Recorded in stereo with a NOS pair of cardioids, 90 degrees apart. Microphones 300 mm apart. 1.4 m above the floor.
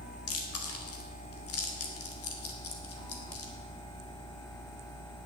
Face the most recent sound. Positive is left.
turn(degrees=50)